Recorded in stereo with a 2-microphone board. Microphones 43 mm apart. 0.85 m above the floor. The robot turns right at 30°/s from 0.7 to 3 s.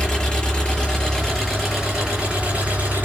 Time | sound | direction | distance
0.0 | an engine running | 155° left | 7.5 m